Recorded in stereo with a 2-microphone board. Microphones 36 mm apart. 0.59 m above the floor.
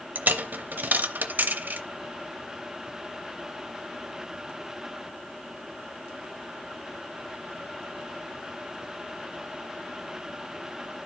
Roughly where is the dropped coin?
Right.